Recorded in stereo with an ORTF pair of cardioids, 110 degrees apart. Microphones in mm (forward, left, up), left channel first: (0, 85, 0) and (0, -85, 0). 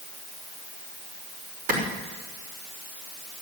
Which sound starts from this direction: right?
A clap, at 1.7 s.